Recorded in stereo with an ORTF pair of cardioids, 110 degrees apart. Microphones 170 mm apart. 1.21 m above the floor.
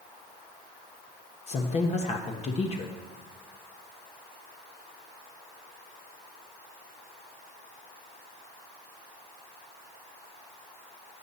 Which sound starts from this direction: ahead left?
A woman speaking, at 1.5 s.